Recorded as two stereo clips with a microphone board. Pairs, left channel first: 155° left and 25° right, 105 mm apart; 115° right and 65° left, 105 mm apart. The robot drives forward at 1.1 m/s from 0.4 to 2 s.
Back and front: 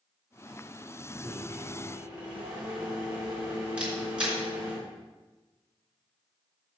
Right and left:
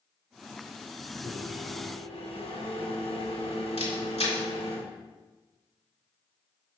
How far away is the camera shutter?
About 3.5 m.